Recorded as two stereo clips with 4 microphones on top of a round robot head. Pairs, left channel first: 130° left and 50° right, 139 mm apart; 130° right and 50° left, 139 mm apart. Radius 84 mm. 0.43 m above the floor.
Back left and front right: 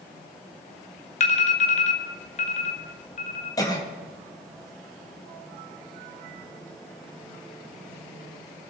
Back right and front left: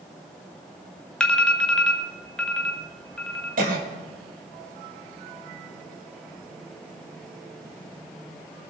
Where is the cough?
65° left, 2.5 m.